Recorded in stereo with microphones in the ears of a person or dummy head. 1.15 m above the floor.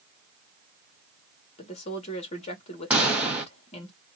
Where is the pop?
5° right (ahead or behind), 0.6 m.